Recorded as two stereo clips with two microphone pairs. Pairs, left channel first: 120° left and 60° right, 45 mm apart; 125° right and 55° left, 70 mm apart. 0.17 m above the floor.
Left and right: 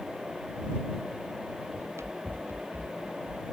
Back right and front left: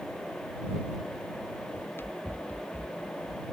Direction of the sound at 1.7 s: 70° right.